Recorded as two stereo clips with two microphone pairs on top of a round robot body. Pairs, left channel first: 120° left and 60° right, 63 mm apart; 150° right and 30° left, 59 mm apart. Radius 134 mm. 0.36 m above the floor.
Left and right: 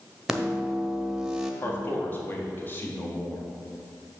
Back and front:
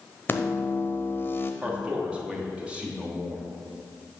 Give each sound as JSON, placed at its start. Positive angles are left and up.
{"t": 0.3, "sound": "a microwave", "azimuth_deg": -140, "distance_m": 0.9}
{"t": 1.6, "sound": "a man speaking", "azimuth_deg": 100, "distance_m": 1.5}